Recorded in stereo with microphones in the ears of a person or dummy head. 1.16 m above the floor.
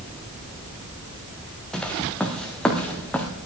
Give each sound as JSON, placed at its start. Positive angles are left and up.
{"t": 1.7, "sound": "footsteps", "side_deg": 5, "distance_m": 1.7}